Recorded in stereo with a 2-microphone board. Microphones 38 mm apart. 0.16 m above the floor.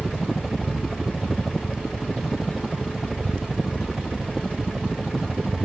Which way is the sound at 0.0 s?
5° right (ahead or behind).